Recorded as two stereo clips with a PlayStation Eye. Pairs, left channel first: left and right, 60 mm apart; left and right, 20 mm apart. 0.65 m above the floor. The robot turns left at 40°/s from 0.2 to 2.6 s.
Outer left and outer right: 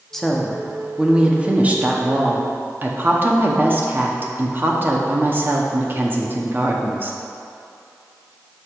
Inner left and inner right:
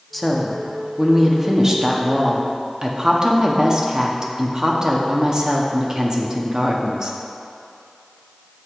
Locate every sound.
0.1 s a woman speaking: 10° left, 0.8 m; by 7.2 s 85° right, 0.8 m